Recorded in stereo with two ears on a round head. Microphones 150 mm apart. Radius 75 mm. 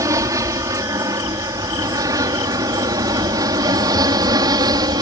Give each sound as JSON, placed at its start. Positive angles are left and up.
{"t": 0.0, "sound": "an aircraft", "side_deg": -20}